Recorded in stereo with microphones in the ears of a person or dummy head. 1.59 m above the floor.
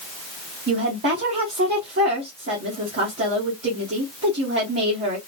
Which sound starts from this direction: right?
A woman speaking, at 0.7 s.